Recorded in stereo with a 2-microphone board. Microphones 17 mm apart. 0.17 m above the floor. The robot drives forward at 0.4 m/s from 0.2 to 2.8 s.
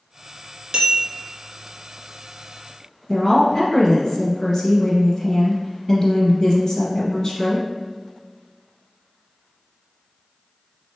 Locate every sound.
0.7 s a bell: 60° right (ahead or behind), 1.5 m
3.1 s a woman speaking: 35° left (ahead or behind), 1.4 m